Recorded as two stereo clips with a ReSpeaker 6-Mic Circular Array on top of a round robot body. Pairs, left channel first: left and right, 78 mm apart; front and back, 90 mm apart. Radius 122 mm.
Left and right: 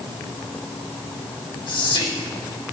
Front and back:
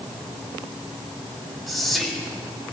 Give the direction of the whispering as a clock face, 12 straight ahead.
9 o'clock.